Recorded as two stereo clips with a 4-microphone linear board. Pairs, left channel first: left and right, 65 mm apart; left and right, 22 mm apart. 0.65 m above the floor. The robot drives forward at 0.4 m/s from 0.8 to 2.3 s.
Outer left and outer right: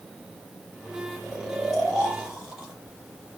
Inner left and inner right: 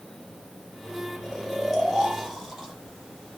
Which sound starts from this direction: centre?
Snoring, at 1.2 s.